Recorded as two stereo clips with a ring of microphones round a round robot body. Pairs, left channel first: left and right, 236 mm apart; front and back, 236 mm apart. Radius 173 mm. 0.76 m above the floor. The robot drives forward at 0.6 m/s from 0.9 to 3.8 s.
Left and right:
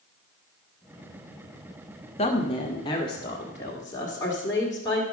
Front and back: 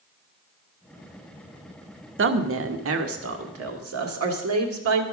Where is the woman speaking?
155° left, 0.9 m; by 5.0 s 170° left, 1.8 m.